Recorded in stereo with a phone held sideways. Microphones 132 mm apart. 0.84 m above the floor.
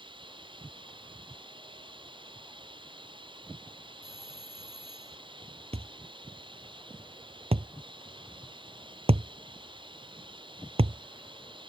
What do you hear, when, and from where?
0.0 s running water: 40° right (ahead or behind)
4.0 s a doorbell: 45° left (ahead or behind)
5.7 s a thud: 50° right (ahead or behind)